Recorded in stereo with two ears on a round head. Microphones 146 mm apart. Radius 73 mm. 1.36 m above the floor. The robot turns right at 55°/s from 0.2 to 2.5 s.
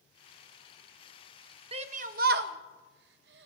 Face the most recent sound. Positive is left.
turn(degrees=-75)  # may be behind; listen again after turning